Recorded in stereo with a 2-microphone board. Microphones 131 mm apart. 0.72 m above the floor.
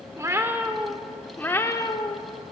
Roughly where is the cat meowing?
Right.